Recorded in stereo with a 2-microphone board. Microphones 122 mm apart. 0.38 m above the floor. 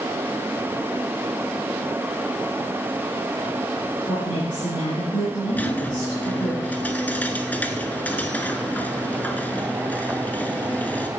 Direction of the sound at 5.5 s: 15° left (ahead or behind).